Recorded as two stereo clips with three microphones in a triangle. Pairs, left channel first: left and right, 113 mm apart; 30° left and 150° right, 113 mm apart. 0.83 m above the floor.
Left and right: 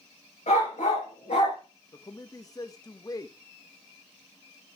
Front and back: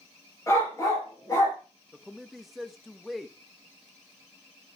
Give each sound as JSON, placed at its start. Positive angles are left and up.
{"t": 0.5, "sound": "a dog barking", "azimuth_deg": 90, "distance_m": 4.5}
{"t": 1.9, "sound": "a man speaking", "azimuth_deg": 120, "distance_m": 1.0}